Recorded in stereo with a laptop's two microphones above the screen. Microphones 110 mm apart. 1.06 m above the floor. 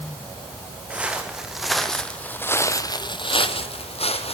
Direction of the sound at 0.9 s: 10° right (ahead or behind).